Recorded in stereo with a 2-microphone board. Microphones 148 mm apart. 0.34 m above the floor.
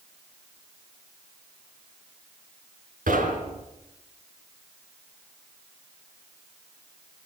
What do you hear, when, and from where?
3.1 s knocking: 80° right, 3.5 m